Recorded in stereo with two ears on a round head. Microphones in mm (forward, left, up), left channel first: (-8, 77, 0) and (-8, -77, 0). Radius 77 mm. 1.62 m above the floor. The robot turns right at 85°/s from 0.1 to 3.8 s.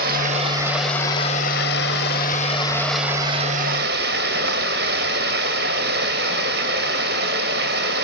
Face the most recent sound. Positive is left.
turn(degrees=-110)